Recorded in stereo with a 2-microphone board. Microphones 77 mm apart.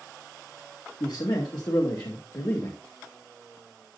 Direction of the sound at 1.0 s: 70° left (ahead or behind).